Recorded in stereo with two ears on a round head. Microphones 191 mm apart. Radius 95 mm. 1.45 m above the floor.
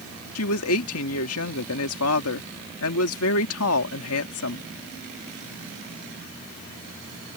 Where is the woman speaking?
75° left (ahead or behind).